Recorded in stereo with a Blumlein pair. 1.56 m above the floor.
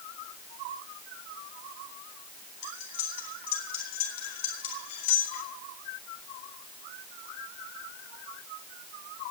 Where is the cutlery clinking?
60° left, 4 m.